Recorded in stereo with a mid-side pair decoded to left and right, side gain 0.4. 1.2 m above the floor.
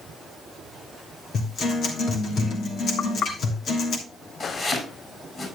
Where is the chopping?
40° left, 6.5 m.